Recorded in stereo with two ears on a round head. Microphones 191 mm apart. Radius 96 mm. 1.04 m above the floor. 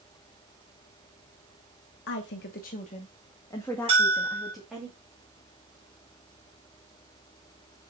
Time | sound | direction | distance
2.1 | a woman speaking | 55° left (ahead or behind) | 1.1 m
3.9 | a bell | 25° right (ahead or behind) | 2.5 m